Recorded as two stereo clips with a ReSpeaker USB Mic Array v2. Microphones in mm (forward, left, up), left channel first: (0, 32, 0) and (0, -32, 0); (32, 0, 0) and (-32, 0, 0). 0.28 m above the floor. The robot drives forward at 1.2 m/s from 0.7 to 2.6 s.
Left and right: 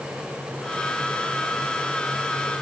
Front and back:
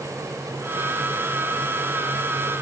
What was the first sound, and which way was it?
Only background noise.